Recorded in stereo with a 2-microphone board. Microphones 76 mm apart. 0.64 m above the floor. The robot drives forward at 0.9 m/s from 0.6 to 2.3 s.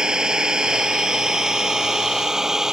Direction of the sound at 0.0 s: 10° right (ahead or behind).